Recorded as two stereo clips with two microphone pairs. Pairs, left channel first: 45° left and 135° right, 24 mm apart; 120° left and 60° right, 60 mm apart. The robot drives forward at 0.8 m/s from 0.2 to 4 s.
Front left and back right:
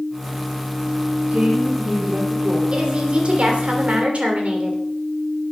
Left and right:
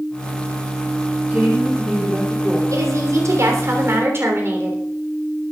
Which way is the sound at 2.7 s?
90° right.